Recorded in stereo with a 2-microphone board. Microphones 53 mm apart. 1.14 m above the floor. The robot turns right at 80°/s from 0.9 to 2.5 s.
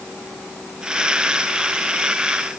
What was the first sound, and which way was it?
Only background noise.